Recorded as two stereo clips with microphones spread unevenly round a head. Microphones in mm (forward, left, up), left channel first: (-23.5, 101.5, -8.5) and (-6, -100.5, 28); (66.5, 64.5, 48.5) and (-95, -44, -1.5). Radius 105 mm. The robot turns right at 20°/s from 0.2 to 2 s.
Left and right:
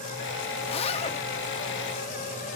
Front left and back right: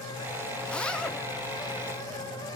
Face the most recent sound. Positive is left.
turn(degrees=80)